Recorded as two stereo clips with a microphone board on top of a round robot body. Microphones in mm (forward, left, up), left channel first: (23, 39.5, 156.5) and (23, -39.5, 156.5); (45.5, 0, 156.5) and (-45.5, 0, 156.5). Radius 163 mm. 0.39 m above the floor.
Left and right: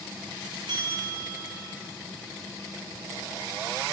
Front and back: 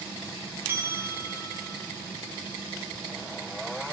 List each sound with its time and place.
0.7 s a bell: 115° right, 6 m